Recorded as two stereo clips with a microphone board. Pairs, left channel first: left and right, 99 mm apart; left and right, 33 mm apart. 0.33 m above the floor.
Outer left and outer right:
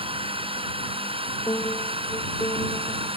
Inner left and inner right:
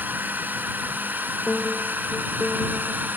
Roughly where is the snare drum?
I don't hear a snare drum.